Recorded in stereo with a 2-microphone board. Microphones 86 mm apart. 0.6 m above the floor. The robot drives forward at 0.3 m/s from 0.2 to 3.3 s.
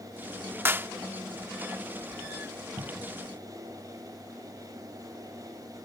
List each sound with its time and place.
0.7 s a clap: 25° right (ahead or behind)
2.8 s a cupboard door: 50° right (ahead or behind)